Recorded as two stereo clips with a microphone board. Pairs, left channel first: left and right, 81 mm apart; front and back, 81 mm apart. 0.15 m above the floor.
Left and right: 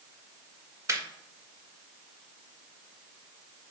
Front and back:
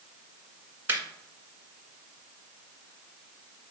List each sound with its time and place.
0.9 s laughter: 130° right, 1.7 m